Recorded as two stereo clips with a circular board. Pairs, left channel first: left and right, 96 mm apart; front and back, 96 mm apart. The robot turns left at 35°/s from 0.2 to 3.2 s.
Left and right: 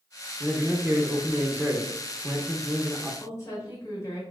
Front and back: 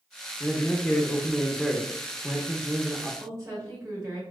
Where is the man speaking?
40° right, 0.8 m; by 3.1 s 135° right, 0.8 m.